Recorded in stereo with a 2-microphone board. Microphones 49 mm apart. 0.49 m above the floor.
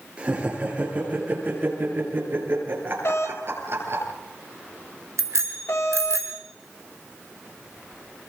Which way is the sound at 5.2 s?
75° right (ahead or behind).